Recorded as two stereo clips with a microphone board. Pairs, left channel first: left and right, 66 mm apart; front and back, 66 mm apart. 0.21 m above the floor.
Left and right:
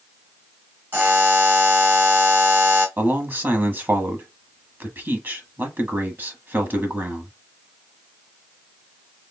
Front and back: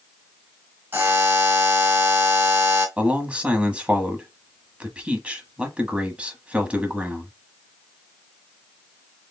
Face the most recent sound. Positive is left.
turn(degrees=-120)